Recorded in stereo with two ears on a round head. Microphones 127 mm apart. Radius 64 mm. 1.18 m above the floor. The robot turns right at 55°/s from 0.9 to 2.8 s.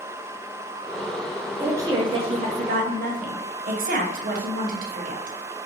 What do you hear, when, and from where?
1.6 s a woman speaking: 165° right, 0.7 m; by 5.7 s 95° right, 0.7 m